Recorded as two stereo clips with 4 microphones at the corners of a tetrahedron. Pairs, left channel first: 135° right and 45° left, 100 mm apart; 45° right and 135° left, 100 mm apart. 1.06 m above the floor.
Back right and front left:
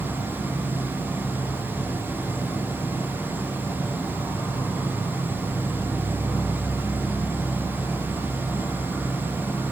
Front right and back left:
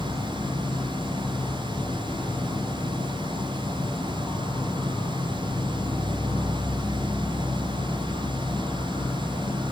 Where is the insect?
70° right, 0.7 m.